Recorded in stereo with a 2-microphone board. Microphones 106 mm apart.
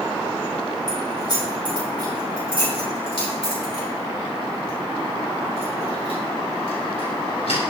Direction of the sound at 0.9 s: 40° left (ahead or behind).